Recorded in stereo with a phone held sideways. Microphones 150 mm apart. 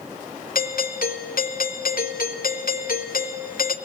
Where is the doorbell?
70° left (ahead or behind), 3 m.